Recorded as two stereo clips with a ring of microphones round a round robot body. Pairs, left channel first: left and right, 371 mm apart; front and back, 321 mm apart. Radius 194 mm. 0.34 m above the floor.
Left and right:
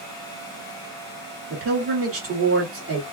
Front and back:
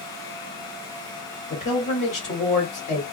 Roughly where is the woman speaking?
Ahead right.